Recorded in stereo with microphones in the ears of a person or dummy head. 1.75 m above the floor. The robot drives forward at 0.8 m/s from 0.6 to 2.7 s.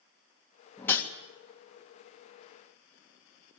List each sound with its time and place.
0.8 s a whoosh: 10° left (ahead or behind), 2 m; by 1.1 s 15° left (ahead or behind), 2.0 m